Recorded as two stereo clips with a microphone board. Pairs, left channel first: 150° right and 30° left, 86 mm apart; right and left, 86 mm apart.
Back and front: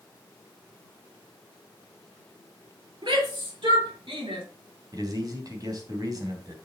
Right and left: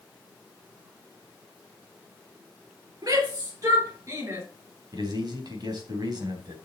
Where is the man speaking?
65° left, 3 m.